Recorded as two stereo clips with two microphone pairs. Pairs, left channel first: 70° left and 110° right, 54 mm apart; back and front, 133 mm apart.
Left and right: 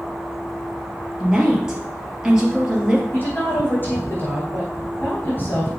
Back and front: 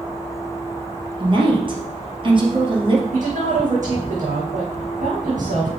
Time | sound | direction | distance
1.2 | a woman speaking | 40° right | 2.5 m
3.1 | a woman speaking | 15° left | 4.5 m